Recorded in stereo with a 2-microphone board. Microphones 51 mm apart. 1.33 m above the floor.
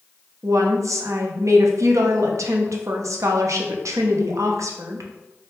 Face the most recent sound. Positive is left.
turn(degrees=-80)